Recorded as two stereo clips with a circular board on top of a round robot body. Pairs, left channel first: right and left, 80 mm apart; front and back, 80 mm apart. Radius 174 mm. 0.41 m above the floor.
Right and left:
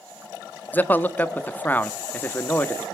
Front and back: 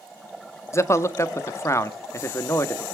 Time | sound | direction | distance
0.7 | a man speaking | 35° right | 1.0 m